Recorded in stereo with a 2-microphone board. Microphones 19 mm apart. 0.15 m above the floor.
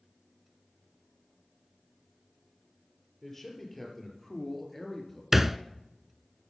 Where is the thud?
15° right (ahead or behind), 0.5 m.